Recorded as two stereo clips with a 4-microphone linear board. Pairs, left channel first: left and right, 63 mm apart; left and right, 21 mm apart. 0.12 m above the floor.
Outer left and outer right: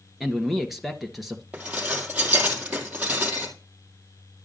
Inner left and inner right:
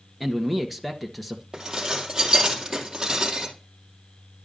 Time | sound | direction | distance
0.2 | a man speaking | 5° right (ahead or behind) | 1.7 m
1.5 | dishes clattering | 25° right (ahead or behind) | 2.5 m